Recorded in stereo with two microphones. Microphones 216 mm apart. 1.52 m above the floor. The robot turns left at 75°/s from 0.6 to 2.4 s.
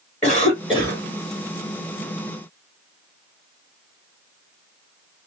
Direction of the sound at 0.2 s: 35° left.